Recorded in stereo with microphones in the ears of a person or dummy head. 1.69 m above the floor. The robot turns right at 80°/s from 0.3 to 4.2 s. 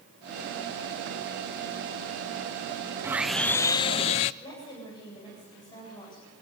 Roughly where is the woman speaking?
Left.